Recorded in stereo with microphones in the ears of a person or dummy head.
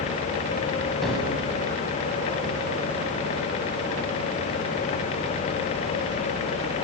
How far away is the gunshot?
About 8 m.